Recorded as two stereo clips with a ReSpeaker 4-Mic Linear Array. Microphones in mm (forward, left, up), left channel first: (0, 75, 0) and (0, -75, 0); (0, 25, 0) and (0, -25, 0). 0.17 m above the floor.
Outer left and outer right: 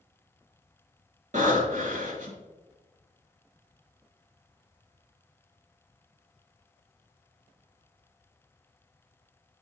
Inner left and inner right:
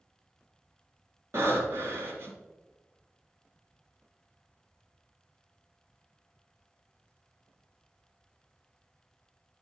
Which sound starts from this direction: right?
Breathing, at 1.3 s.